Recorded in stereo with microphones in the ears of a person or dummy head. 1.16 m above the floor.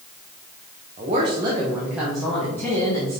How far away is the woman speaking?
About 1.2 m.